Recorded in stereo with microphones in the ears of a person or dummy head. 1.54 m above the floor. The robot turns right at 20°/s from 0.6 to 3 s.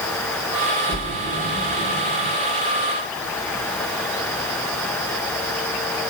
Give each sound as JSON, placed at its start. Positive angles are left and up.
{"t": 0.9, "sound": "a splash", "side_deg": -20, "distance_m": 2.5}